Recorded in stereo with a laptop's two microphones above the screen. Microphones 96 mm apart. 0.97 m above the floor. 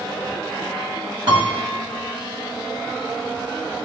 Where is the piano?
55° right (ahead or behind), 1.9 m.